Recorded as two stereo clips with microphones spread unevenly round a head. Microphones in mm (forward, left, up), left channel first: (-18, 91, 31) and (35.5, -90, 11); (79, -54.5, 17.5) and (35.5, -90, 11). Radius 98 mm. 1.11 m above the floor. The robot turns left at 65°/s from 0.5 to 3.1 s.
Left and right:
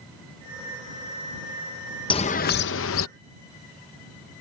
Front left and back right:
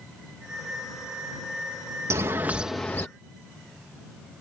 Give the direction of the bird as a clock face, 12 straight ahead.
6 o'clock.